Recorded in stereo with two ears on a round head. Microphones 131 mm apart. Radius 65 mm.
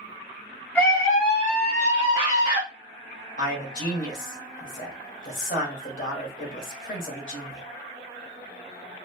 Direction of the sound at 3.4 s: 60° left (ahead or behind).